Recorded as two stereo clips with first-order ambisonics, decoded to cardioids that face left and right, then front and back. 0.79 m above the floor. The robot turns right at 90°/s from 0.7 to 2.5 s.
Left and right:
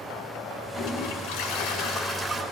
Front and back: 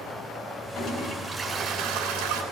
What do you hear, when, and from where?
0.8 s a toilet flushing: 40° left, 4 m; by 2.4 s 170° right, 4 m